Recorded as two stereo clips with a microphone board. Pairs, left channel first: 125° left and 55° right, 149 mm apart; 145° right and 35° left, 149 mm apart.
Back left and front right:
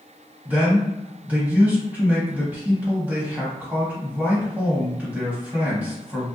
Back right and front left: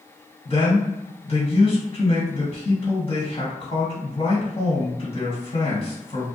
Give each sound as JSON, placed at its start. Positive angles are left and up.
{"t": 0.5, "sound": "a man speaking", "azimuth_deg": -130, "distance_m": 1.7}